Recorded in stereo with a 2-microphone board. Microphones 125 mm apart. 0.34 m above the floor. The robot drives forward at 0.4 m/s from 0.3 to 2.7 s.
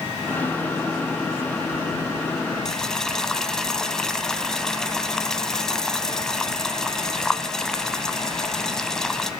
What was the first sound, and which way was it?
Boiling, 5° left (ahead or behind).